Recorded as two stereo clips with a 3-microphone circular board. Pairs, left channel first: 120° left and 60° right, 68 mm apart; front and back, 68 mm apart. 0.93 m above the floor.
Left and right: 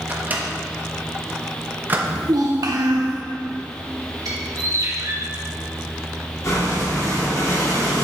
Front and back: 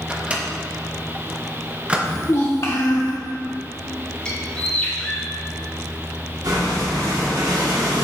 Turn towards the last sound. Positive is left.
turn(degrees=160)